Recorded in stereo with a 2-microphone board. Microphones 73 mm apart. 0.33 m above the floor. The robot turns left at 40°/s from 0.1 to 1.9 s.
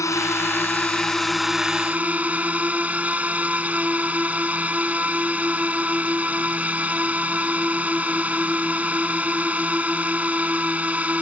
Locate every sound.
0.0 s a drone: 50° left; by 11.2 s 20° right